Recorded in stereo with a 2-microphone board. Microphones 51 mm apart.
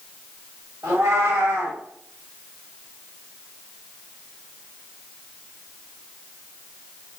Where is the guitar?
I don't hear a guitar.